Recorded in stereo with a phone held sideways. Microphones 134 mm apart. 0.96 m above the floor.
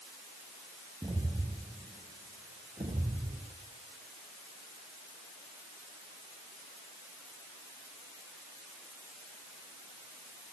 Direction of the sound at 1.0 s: 30° right (ahead or behind).